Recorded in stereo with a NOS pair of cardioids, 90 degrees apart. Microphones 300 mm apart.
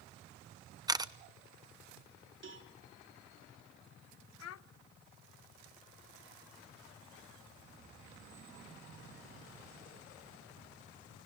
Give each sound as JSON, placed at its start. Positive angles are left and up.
{"t": 0.9, "sound": "a camera shutter", "azimuth_deg": -15, "distance_m": 0.9}
{"t": 2.4, "sound": "a cowbell", "azimuth_deg": -40, "distance_m": 3.5}
{"t": 4.4, "sound": "a child speaking", "azimuth_deg": 60, "distance_m": 1.0}